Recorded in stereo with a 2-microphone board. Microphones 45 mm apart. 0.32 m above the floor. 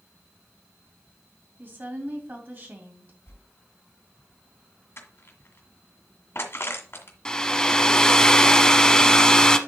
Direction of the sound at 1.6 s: 40° right (ahead or behind).